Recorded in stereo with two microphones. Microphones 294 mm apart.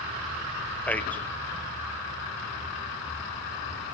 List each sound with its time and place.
0.9 s a man speaking: 5° left (ahead or behind), 0.5 m